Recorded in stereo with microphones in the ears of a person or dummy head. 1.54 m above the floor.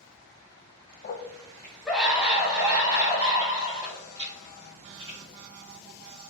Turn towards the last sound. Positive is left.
turn(degrees=-25)  # may be behind; listen again after turning